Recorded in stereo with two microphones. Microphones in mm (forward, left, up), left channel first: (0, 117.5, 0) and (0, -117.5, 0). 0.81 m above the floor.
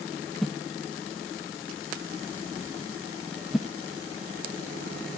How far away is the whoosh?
About 0.6 m.